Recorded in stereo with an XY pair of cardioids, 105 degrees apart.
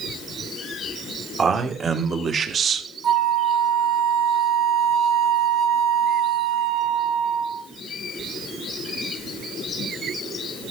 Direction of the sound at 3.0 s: 60° right.